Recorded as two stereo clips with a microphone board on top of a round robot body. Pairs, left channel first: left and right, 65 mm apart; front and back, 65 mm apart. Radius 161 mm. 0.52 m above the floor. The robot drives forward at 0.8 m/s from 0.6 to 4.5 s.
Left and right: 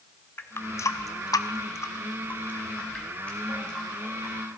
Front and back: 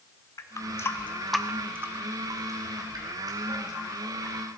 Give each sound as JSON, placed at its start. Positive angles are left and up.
{"t": 0.4, "sound": "a running tap", "azimuth_deg": 40, "distance_m": 0.8}